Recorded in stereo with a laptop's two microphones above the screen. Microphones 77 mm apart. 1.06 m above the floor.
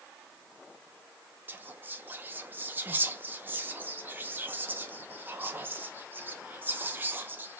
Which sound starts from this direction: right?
Whispering, at 1.5 s.